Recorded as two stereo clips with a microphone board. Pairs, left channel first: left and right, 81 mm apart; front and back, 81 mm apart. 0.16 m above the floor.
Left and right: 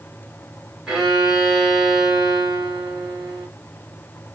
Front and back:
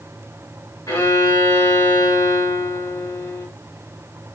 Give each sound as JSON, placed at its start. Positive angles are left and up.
{"t": 0.9, "sound": "a violin", "azimuth_deg": -10, "distance_m": 1.7}